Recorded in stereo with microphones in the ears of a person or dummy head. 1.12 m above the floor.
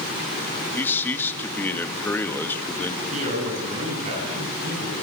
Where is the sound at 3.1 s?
35° right (ahead or behind), 8.5 m.